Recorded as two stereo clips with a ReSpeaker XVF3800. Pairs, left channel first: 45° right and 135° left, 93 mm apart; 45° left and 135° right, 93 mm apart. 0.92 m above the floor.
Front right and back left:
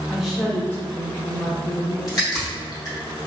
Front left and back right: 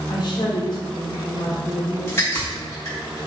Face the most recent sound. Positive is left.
turn(degrees=-5)